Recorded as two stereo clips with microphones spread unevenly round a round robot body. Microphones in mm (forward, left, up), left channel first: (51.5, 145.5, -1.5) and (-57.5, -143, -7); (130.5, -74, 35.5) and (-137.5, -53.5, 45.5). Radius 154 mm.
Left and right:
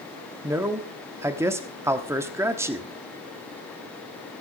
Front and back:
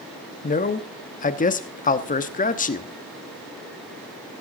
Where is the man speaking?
35° right, 1.1 m.